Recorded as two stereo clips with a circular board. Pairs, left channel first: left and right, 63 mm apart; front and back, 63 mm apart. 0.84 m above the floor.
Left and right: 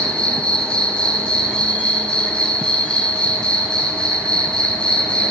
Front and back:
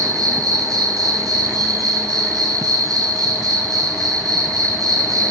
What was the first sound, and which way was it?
An insect, 165° left.